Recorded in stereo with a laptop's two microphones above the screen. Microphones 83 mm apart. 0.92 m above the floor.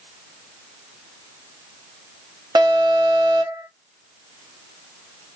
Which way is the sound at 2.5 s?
55° right (ahead or behind).